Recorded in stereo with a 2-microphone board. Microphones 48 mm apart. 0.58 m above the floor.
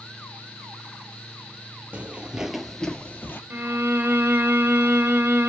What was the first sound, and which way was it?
Footsteps, 35° right (ahead or behind).